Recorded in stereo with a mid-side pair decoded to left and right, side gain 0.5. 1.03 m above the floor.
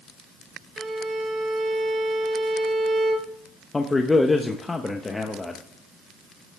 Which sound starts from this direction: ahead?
A man speaking, at 3.7 s.